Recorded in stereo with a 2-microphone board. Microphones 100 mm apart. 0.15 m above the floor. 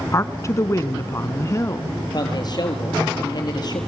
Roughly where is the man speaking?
Left.